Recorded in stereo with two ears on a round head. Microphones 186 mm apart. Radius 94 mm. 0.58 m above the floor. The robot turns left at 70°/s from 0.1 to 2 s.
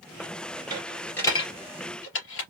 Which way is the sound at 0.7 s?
25° right (ahead or behind).